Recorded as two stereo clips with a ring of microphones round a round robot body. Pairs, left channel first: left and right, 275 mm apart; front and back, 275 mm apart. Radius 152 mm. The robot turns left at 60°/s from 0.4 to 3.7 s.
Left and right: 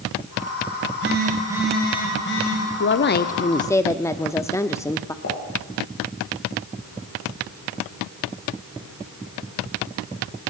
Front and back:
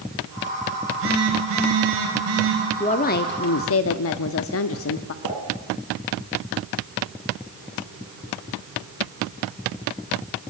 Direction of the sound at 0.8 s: 125° right.